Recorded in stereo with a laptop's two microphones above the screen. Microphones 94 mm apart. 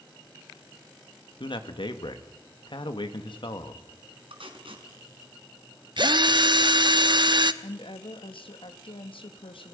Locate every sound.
1.4 s a man speaking: 60° left (ahead or behind), 1.9 m
4.3 s tape being pulled: 70° right (ahead or behind), 3.5 m
6.0 s a drill: 55° right (ahead or behind), 0.7 m
7.6 s a woman speaking: 70° left (ahead or behind), 1.4 m